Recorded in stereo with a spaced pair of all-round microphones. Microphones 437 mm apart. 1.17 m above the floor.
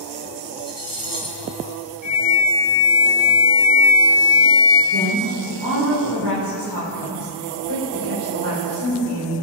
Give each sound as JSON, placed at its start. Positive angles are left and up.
{"t": 0.6, "sound": "cutlery clinking", "side_deg": -50, "distance_m": 1.6}
{"t": 2.0, "sound": "a flute", "side_deg": -55, "distance_m": 2.5}
{"t": 4.9, "sound": "a woman speaking", "side_deg": -60, "distance_m": 3.5}